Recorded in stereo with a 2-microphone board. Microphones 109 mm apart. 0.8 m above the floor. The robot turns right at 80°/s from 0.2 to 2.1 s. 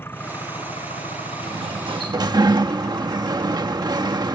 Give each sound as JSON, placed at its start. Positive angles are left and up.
{"t": 0.0, "sound": "an engine running", "azimuth_deg": 20}
{"t": 1.4, "sound": "a sliding door", "azimuth_deg": -105}